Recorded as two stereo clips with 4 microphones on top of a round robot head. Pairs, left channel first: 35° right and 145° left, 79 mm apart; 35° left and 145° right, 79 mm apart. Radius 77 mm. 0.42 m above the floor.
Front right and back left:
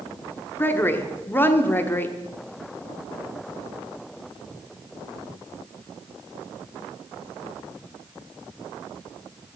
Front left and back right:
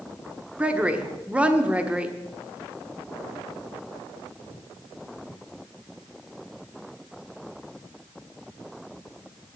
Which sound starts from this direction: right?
A woman speaking, at 0.6 s.